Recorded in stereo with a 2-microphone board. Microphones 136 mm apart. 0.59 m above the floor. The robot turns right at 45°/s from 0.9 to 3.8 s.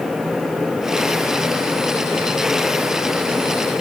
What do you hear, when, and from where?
Only background noise.